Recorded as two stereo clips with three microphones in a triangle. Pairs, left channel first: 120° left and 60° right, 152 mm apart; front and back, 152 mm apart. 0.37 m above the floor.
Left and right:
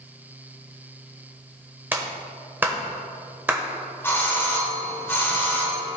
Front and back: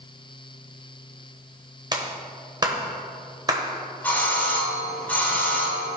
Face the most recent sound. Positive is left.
turn(degrees=65)